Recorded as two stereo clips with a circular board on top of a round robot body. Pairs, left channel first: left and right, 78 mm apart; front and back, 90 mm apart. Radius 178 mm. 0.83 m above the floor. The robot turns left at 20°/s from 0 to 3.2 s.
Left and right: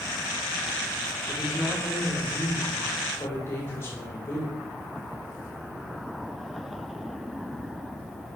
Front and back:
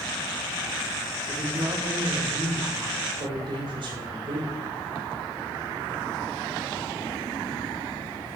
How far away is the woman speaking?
About 3 m.